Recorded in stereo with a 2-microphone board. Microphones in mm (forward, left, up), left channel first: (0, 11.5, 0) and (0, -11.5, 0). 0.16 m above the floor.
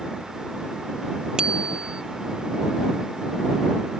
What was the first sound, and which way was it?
A bicycle bell, 35° right (ahead or behind).